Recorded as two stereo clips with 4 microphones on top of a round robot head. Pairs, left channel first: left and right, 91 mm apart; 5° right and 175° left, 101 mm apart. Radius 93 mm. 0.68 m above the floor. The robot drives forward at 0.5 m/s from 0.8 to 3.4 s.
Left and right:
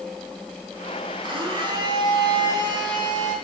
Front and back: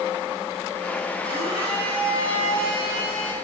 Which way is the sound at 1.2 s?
120° right.